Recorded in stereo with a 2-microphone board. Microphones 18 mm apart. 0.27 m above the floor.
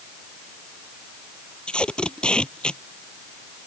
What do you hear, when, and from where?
1.7 s tape being pulled: 65° left (ahead or behind)